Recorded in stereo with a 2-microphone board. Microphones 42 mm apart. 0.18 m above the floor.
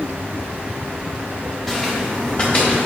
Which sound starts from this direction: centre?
Footsteps, at 1.7 s.